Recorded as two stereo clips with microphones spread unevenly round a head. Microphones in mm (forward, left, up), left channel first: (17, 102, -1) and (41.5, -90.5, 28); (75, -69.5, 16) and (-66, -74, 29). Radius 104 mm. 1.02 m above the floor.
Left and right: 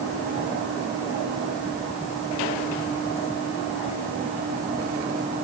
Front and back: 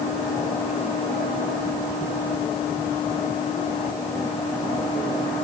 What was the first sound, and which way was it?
Only background noise.